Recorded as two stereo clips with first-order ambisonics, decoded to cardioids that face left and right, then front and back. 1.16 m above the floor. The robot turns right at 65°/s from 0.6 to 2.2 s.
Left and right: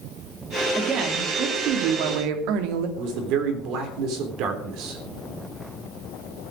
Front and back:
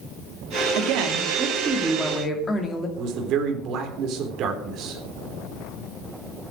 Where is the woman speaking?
170° right, 2.5 m; by 2.9 s 75° right, 2.5 m.